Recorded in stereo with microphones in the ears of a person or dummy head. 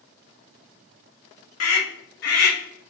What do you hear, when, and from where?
1.6 s a scream: 70° left (ahead or behind), 1.3 m; by 2.9 s 35° left (ahead or behind), 1.0 m